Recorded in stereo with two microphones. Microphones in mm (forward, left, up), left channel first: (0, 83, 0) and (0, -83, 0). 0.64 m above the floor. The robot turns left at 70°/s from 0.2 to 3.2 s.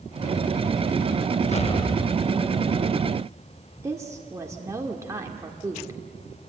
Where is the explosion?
60° left, 0.5 m; by 2.7 s 25° right, 0.5 m.